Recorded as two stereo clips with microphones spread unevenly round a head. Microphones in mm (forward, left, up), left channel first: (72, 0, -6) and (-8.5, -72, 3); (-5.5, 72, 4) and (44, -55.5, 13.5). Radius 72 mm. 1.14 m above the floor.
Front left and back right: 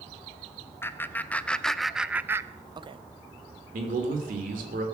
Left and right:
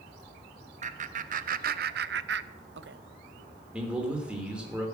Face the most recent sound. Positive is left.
turn(degrees=-150)